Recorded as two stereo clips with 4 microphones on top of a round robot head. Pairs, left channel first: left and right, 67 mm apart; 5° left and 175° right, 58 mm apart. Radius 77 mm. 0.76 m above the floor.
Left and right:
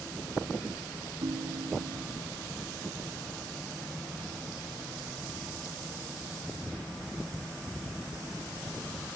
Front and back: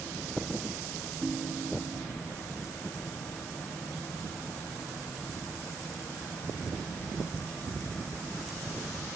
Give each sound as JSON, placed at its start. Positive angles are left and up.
{"t": 1.2, "sound": "a ringtone", "azimuth_deg": -90, "distance_m": 0.5}